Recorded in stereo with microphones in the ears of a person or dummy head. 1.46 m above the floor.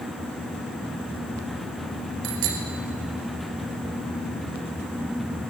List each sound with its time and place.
2.2 s a bicycle bell: 85° right, 5 m